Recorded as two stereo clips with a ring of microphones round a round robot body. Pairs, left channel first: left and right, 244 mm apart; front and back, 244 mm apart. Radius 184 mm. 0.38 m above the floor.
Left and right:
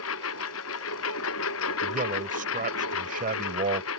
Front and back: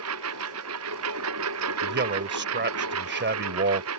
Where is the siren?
No siren in this recording.